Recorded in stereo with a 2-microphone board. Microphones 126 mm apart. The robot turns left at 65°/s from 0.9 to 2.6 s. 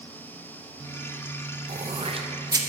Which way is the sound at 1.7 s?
60° right (ahead or behind).